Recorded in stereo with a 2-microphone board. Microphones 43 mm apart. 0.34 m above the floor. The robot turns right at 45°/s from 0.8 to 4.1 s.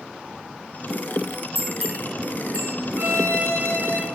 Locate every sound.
1.6 s a bell: 5° left (ahead or behind), 5 m; by 2.7 s 45° right (ahead or behind), 5 m
3.0 s a violin: 100° right, 3 m; by 4.1 s 55° right, 3 m